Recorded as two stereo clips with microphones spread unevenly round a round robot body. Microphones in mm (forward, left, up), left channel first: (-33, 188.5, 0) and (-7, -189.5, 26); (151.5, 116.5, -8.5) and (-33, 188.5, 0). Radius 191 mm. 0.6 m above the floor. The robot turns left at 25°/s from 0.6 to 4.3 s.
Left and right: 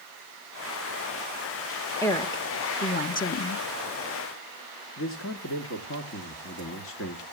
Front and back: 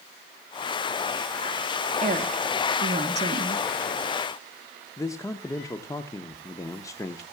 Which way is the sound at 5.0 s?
50° left.